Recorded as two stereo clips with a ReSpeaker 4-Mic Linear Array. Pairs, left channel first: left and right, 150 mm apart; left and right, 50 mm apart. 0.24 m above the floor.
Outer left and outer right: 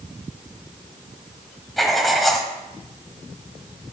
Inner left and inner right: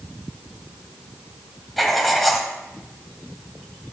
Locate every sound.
1.8 s writing: centre (ahead or behind), 1.1 m